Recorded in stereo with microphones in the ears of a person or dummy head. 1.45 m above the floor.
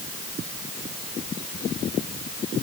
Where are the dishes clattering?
No dishes clattering in this recording.